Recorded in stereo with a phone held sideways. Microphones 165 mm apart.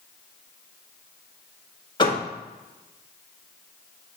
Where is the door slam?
30° left (ahead or behind), 1.8 m.